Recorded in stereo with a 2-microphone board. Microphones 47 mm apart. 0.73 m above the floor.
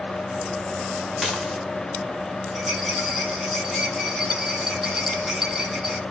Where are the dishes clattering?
Centre (ahead or behind), 1.5 m.